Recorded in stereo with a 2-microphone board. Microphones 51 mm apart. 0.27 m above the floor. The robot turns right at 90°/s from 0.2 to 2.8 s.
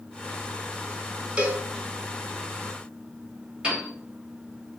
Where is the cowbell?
25° right (ahead or behind), 0.6 m.